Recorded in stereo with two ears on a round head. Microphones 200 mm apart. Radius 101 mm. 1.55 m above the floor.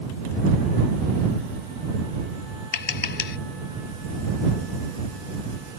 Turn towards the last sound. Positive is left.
turn(degrees=50)  # may be behind; listen again after turning